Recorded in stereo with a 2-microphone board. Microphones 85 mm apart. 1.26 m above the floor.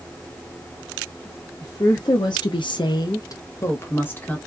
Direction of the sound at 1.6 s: 35° left (ahead or behind).